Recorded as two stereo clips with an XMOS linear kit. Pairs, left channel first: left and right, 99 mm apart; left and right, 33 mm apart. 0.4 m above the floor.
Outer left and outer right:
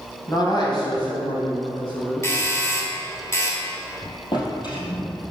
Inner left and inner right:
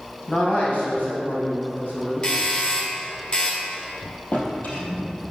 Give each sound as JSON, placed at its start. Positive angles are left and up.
{"t": 0.3, "sound": "a man speaking", "side_deg": 40, "distance_m": 3.0}
{"t": 2.2, "sound": "a doorbell", "side_deg": 30, "distance_m": 1.7}
{"t": 4.3, "sound": "a drawer", "side_deg": 45, "distance_m": 3.0}